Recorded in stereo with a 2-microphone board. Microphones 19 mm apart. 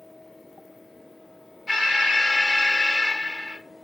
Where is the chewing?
No chewing in this recording.